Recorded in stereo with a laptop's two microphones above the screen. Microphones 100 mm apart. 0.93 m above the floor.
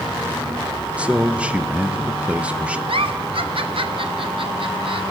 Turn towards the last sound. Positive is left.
turn(degrees=-60)  # may be behind; listen again after turning